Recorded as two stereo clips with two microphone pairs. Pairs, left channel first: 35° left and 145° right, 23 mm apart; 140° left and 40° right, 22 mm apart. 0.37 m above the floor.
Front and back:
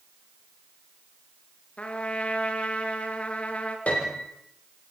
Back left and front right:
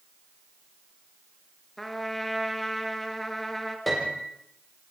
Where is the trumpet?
55° left, 3 m.